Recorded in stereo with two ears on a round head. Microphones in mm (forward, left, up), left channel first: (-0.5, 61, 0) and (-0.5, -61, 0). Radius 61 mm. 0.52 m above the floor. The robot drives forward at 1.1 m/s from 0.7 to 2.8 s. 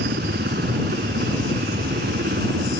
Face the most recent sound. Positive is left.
turn(degrees=-75)  # may be behind; listen again after turning